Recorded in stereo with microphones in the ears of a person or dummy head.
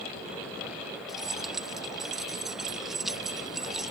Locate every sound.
1.1 s keys jangling: 5° right (ahead or behind)